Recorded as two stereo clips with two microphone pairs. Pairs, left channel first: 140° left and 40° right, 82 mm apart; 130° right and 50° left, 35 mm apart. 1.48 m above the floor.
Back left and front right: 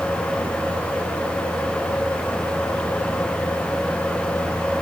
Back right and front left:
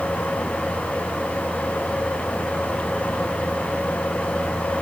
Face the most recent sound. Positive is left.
No sound to turn to.